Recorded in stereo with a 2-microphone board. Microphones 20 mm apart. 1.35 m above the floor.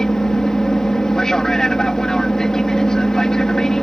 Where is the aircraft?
30° left (ahead or behind).